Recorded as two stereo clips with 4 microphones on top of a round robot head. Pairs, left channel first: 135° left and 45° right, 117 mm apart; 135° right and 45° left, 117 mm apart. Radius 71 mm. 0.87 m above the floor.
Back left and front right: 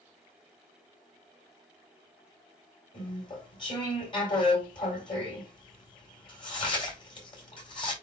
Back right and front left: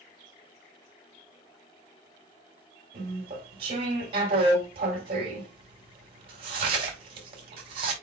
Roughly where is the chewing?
Left.